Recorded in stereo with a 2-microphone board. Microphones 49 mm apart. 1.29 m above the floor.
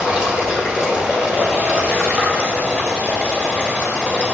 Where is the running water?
20° right (ahead or behind), 1.8 m.